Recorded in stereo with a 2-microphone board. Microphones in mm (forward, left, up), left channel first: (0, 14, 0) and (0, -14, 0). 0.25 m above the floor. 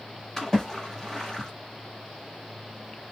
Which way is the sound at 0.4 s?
15° left (ahead or behind).